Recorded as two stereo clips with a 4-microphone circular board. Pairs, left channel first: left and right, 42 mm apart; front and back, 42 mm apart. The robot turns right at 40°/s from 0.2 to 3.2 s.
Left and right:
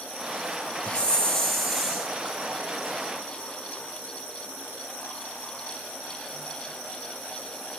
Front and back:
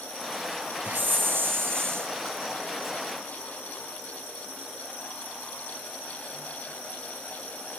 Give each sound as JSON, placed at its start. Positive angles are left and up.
{"t": 0.8, "sound": "a hiss", "azimuth_deg": 150, "distance_m": 2.5}